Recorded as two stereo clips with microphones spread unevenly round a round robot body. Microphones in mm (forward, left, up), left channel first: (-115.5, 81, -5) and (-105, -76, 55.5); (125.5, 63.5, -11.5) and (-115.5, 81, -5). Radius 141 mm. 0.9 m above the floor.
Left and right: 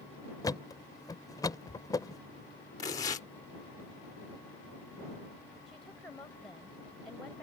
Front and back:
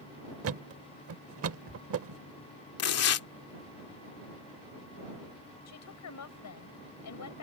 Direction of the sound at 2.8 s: 20° left.